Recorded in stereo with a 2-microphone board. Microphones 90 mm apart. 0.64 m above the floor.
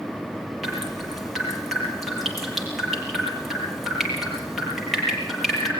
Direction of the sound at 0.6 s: Centre (ahead or behind).